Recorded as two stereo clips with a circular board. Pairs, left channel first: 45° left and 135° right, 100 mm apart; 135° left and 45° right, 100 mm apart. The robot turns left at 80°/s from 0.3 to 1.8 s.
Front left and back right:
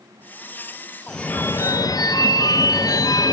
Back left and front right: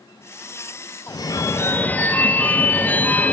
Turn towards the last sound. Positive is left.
turn(degrees=70)